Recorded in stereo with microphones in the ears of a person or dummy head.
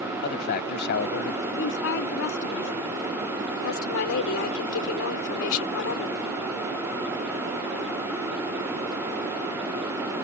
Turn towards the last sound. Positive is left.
turn(degrees=75)  # may be behind; listen again after turning